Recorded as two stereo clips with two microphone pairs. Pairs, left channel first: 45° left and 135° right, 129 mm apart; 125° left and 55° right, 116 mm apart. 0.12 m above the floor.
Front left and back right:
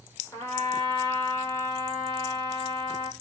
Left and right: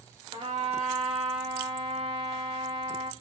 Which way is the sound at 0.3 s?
25° right.